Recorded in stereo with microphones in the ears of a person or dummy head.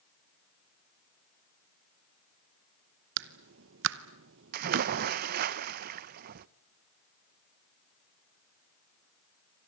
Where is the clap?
70° right (ahead or behind), 0.9 m.